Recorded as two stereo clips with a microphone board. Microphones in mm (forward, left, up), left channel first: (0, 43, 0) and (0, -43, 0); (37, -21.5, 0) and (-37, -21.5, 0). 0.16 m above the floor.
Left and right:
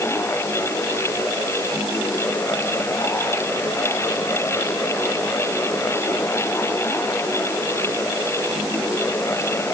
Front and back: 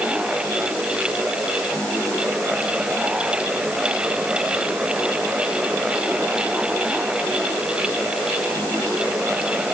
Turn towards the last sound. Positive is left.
No sound to turn to.